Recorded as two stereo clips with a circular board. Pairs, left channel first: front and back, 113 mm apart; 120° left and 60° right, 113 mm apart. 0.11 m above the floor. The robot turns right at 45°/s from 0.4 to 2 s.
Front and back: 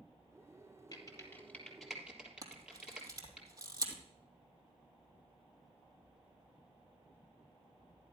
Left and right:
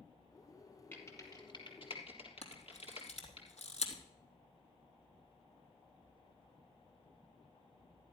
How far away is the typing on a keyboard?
About 3 m.